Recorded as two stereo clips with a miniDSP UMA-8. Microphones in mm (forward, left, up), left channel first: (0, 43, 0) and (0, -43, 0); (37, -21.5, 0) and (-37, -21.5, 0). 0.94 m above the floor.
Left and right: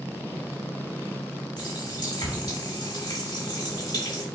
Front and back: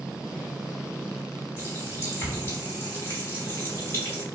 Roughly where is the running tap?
Ahead left.